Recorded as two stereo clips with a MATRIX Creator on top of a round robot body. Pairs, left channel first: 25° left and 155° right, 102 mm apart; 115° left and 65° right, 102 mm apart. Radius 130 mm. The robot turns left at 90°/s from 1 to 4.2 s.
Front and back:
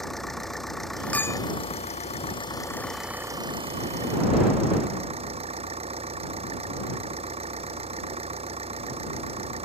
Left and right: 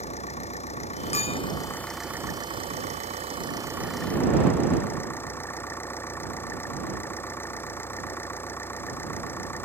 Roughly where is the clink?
Left.